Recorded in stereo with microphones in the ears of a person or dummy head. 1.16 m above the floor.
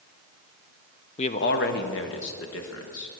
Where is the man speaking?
25° left (ahead or behind), 0.6 m; by 3.1 s 65° left (ahead or behind), 1.6 m.